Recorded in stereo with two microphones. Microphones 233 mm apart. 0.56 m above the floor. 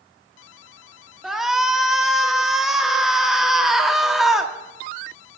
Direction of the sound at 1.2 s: Centre (ahead or behind).